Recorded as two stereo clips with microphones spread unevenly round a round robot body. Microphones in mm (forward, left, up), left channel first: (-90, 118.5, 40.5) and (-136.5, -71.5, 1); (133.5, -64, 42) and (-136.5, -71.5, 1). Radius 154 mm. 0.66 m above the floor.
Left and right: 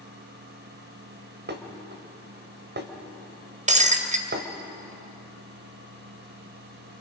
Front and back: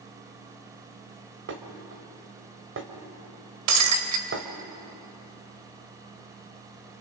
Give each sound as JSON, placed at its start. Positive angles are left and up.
{"t": 1.5, "sound": "dishes clattering", "azimuth_deg": -135, "distance_m": 2.0}
{"t": 3.7, "sound": "breaking glass", "azimuth_deg": -160, "distance_m": 1.7}